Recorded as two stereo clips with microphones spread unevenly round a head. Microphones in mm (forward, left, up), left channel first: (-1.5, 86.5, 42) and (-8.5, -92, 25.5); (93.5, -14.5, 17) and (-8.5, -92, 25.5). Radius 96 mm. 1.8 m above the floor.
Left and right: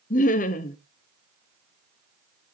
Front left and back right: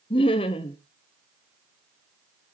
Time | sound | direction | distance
0.1 | laughter | 85° left | 0.7 m